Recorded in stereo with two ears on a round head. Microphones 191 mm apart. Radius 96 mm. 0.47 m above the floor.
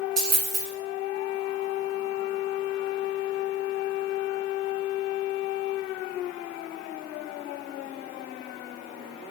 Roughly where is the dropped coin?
Right.